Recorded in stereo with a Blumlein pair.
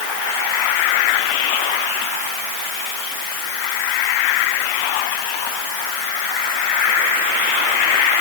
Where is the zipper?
No zipper in this recording.